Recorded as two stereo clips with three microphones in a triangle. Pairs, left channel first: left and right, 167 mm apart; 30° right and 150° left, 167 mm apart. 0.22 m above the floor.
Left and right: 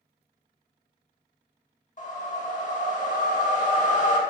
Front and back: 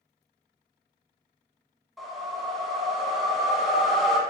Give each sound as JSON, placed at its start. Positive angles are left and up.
{"t": 2.0, "sound": "a whoosh", "azimuth_deg": 60, "distance_m": 0.5}